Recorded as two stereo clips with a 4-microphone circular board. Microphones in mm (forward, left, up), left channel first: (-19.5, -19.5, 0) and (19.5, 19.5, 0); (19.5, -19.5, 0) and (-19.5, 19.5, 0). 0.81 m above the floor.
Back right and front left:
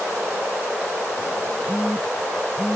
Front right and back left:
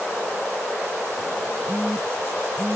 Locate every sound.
1.7 s a phone buzzing: 150° left, 0.8 m